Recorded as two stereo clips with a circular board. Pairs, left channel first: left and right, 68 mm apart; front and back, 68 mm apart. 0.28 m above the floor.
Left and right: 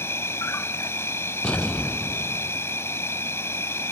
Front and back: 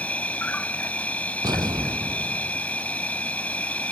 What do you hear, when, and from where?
0.0 s an insect: 60° left
1.4 s an explosion: 170° left